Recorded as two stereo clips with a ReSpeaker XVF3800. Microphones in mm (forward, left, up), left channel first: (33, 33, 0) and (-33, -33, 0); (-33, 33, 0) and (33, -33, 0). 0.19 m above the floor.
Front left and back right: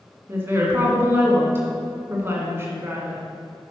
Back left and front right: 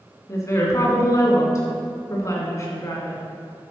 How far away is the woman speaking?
About 1.9 m.